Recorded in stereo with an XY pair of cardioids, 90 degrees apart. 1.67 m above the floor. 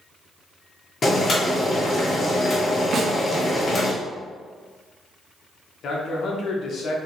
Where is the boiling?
40° left, 1.4 m.